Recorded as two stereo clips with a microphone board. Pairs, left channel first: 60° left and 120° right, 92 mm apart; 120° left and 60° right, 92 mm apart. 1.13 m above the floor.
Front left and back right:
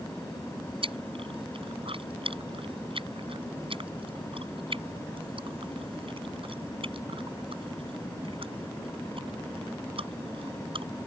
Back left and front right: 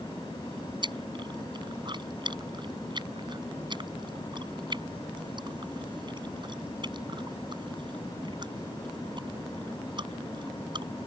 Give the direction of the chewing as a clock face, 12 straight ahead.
3 o'clock.